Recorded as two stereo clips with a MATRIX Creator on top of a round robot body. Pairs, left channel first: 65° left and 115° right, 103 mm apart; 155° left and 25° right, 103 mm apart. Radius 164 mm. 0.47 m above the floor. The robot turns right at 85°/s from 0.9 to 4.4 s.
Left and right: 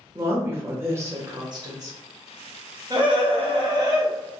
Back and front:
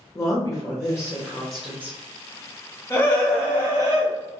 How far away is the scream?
About 1.9 m.